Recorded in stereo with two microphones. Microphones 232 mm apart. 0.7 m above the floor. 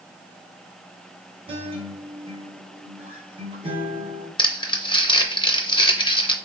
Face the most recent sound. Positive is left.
turn(degrees=20)  # may be behind; listen again after turning